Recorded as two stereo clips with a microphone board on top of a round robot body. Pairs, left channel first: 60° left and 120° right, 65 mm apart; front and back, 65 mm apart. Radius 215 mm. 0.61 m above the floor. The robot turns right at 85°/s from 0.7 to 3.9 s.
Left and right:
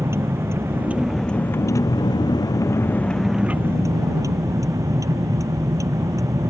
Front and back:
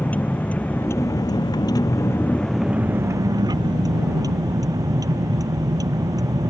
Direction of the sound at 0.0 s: 65° right.